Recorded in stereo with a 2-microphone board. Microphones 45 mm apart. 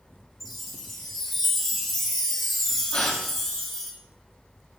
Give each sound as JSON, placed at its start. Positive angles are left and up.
{"t": 0.4, "sound": "a chime", "side_deg": 0, "distance_m": 2.5}
{"t": 2.9, "sound": "a gasp", "side_deg": 25, "distance_m": 2.5}